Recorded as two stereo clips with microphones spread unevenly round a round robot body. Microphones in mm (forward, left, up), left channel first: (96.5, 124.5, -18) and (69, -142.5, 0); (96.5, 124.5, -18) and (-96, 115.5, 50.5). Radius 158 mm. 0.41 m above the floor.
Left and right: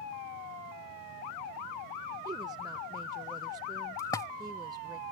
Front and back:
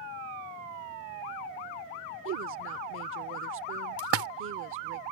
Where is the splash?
160° left.